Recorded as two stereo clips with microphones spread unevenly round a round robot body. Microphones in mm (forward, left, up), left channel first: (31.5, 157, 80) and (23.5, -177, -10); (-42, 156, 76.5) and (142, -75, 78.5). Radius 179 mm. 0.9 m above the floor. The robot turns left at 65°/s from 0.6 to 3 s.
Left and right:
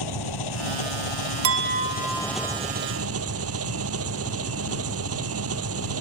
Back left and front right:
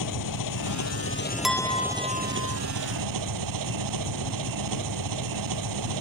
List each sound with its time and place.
0.0 s an engine running: 115° left; by 6.0 s 40° right
1.4 s a clink: 140° right; by 2.6 s 145° left